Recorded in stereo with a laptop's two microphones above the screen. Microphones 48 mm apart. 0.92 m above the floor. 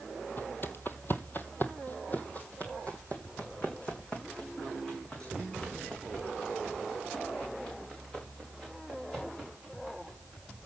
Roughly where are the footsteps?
Left.